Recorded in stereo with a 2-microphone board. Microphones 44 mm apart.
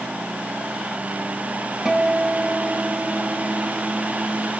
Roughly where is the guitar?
Centre.